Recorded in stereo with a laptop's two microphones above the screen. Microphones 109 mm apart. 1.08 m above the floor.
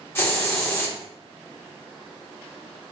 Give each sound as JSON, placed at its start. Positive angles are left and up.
{"t": 0.1, "sound": "a hiss", "side_deg": 20, "distance_m": 1.3}